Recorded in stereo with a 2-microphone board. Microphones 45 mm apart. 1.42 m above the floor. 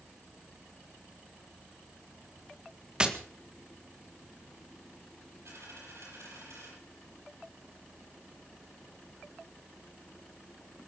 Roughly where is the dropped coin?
Right.